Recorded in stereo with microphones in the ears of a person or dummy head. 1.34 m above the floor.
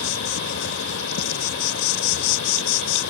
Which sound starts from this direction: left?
An insect, at 0.0 s.